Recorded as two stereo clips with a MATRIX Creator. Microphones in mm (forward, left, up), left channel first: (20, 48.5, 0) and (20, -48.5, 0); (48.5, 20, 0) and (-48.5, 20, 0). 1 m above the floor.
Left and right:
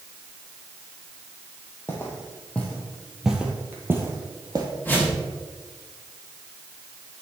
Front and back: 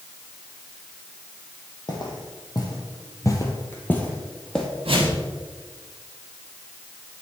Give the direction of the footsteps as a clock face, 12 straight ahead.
11 o'clock.